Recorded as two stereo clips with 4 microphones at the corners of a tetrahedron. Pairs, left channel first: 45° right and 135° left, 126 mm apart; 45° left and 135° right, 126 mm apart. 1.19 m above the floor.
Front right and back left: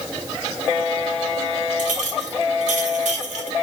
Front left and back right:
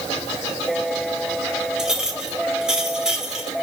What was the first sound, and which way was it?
A clink, 140° left.